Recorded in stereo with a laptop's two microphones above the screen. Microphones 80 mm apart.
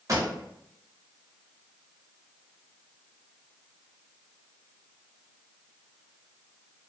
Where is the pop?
45° right (ahead or behind), 0.6 m.